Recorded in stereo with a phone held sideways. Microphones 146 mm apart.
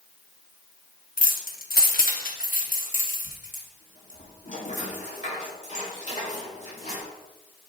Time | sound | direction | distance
1.2 | keys jangling | 60° left (ahead or behind) | 0.8 m